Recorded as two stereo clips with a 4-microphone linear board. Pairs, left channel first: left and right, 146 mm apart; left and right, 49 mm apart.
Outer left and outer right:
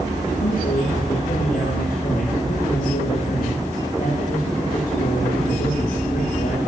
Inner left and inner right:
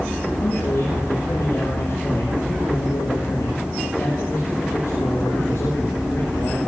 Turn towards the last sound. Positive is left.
turn(degrees=75)  # may be behind; listen again after turning